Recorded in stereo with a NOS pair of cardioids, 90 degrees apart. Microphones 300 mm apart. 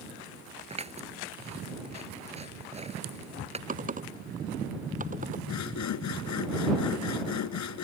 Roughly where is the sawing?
Left.